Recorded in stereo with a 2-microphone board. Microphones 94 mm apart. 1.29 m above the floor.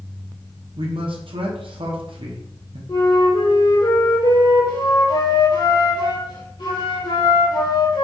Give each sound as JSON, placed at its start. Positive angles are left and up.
{"t": 0.8, "sound": "a man speaking", "side_deg": -70, "distance_m": 0.8}
{"t": 2.9, "sound": "a flute", "side_deg": 60, "distance_m": 2.0}